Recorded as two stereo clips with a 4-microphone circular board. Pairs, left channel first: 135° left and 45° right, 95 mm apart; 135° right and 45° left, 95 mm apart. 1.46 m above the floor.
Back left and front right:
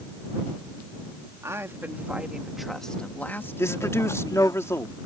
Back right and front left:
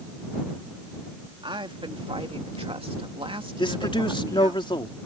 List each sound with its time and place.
1.4 s a woman speaking: 15° left; by 4.6 s 90° left
3.6 s a man speaking: 165° right